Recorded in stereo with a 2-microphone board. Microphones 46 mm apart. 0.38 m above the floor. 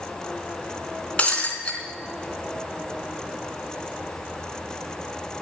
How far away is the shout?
No shout in this recording.